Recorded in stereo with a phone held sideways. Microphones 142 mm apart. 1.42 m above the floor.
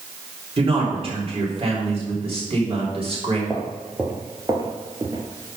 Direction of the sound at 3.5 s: 5° right (ahead or behind).